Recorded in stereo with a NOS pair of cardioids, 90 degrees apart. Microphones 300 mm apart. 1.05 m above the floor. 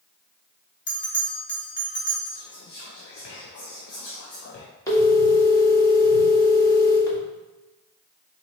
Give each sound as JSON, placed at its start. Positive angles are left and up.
{"t": 0.9, "sound": "a bell", "azimuth_deg": 35, "distance_m": 1.4}
{"t": 2.3, "sound": "whispering", "azimuth_deg": 50, "distance_m": 0.6}
{"t": 4.9, "sound": "a phone ringing", "azimuth_deg": 10, "distance_m": 1.5}